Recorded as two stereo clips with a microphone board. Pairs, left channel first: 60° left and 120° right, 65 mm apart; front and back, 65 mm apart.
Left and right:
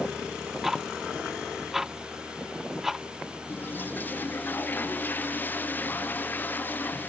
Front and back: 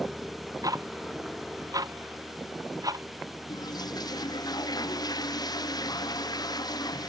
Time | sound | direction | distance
0.6 | ticking | 155° left | ?
3.5 | a toilet flushing | straight ahead | ?